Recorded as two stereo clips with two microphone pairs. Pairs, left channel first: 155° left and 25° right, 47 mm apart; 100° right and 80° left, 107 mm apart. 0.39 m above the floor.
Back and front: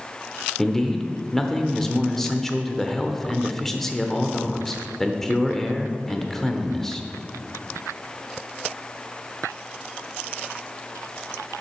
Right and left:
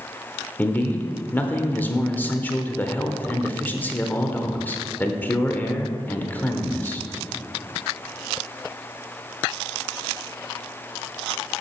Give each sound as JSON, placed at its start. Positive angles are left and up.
{"t": 0.6, "sound": "a man speaking", "azimuth_deg": -130, "distance_m": 0.9}